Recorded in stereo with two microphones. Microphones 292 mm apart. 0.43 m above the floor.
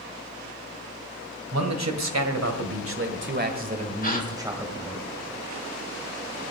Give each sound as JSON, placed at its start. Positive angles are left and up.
{"t": 1.5, "sound": "a man speaking", "side_deg": -65, "distance_m": 2.5}
{"t": 4.0, "sound": "a gasp", "side_deg": 30, "distance_m": 1.5}